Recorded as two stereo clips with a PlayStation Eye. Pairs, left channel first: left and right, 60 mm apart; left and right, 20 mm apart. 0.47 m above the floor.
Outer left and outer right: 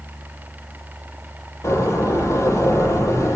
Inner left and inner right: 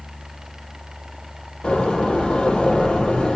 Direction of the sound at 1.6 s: 60° left (ahead or behind).